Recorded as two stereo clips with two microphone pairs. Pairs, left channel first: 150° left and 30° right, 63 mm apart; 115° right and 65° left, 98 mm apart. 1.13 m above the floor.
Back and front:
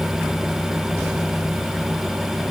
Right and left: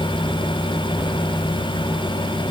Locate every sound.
Only background noise.